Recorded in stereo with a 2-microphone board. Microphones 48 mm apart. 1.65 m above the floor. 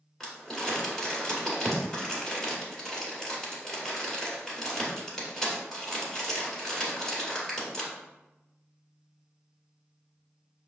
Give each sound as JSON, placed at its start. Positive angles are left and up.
{"t": 0.2, "sound": "crumpling", "side_deg": 10, "distance_m": 1.8}